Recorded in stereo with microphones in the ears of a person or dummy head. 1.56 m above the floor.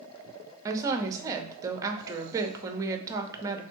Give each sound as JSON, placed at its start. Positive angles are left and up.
{"t": 0.7, "sound": "a woman speaking", "side_deg": -20, "distance_m": 0.7}